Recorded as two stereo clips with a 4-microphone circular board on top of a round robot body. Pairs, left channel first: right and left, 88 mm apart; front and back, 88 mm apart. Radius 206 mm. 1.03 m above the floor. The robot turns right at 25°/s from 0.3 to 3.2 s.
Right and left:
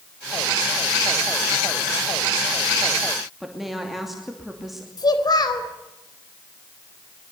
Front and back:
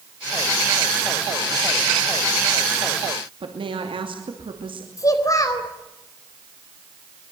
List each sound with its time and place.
3.4 s a woman speaking: 175° left, 2.5 m
5.0 s a child speaking: 50° right, 4 m